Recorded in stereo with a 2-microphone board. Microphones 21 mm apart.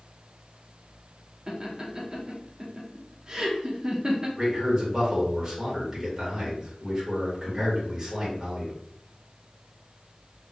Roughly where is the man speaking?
Right.